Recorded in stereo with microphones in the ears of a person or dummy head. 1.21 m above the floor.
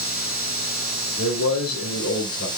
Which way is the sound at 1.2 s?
70° left (ahead or behind).